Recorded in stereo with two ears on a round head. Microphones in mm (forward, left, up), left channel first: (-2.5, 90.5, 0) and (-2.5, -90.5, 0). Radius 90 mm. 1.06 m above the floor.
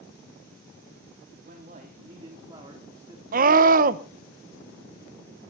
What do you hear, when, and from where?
1.4 s a man speaking: 45° right (ahead or behind), 2.5 m; by 3.2 s 10° right (ahead or behind), 3.5 m
3.3 s a scream: 45° right (ahead or behind), 1.0 m